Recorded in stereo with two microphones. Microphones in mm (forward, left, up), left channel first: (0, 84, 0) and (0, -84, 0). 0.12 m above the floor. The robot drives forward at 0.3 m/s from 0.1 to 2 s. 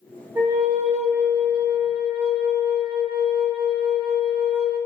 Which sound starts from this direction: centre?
A flute, at 0.3 s.